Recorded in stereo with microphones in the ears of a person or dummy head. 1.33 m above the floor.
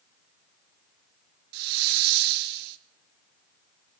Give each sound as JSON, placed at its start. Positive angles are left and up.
{"t": 1.5, "sound": "a hiss", "side_deg": -60, "distance_m": 0.8}